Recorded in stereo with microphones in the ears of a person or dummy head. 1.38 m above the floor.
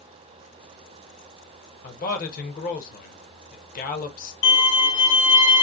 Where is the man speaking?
45° left (ahead or behind), 1.1 m.